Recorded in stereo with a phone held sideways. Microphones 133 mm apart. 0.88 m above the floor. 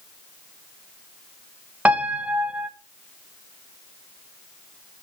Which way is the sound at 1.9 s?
10° right (ahead or behind).